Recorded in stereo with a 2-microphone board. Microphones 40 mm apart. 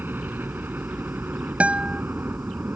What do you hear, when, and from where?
0.0 s a helicopter: 60° right (ahead or behind)
1.6 s a guitar: 35° right (ahead or behind)